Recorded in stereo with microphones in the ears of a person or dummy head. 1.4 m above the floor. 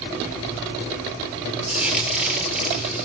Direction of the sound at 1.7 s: 5° right (ahead or behind).